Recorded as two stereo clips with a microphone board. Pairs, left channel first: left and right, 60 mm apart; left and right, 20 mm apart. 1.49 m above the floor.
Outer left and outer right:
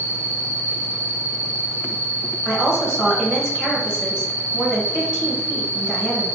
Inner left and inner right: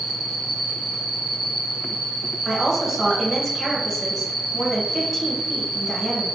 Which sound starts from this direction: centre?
A woman speaking, at 2.5 s.